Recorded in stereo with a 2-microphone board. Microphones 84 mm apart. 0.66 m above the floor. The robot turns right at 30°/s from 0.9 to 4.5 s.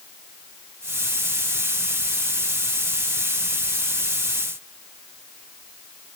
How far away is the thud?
I don't hear a thud.